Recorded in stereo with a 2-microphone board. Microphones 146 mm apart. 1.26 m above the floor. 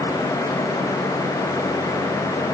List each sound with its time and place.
Only background noise.